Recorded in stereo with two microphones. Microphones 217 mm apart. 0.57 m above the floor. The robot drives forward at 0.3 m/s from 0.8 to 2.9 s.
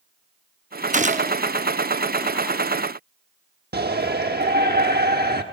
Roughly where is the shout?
Right.